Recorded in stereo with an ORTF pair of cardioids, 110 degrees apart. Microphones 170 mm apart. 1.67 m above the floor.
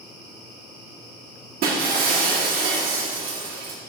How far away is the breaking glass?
About 2.5 m.